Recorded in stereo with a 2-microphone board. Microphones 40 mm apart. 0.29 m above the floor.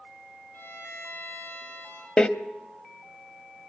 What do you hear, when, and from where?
0.5 s a violin: 85° left, 10 m
2.2 s a door slam: 25° left (ahead or behind), 0.9 m